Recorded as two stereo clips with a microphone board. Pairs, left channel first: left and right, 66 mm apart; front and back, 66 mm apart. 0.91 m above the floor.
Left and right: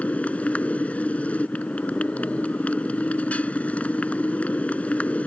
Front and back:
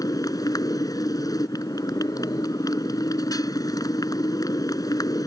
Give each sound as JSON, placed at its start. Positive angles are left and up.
{"t": 0.0, "sound": "a motorcycle", "azimuth_deg": 20}